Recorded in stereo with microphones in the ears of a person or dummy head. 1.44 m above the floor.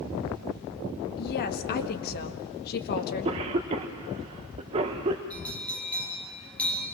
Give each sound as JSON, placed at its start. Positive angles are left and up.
{"t": 1.2, "sound": "a woman speaking", "side_deg": 50, "distance_m": 1.8}
{"t": 3.0, "sound": "a cough", "side_deg": -40, "distance_m": 1.1}
{"t": 5.3, "sound": "a bell", "side_deg": 0, "distance_m": 5.0}